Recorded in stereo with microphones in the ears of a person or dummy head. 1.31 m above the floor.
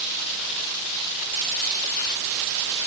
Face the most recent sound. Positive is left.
No sound to turn to.